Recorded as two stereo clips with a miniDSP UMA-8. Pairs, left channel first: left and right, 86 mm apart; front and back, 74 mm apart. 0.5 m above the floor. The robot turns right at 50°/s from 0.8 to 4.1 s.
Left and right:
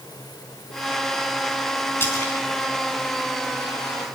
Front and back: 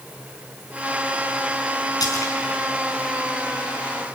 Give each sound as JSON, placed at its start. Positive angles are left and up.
{"t": 2.0, "sound": "a splash", "azimuth_deg": 25, "distance_m": 4.5}